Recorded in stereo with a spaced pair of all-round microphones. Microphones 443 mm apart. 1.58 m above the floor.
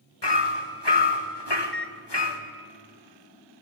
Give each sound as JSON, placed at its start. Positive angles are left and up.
{"t": 0.2, "sound": "hammering", "side_deg": 65, "distance_m": 2.0}
{"t": 1.6, "sound": "a microwave", "side_deg": -25, "distance_m": 1.0}